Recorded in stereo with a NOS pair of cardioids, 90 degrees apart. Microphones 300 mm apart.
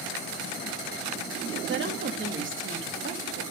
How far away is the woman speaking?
About 2.0 m.